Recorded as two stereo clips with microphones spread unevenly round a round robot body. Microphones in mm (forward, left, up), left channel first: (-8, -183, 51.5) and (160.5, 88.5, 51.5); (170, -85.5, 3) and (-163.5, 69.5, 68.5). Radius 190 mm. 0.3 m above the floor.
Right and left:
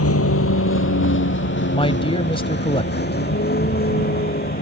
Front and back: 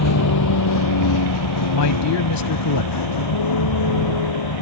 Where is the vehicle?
75° right; by 4.6 s 60° right.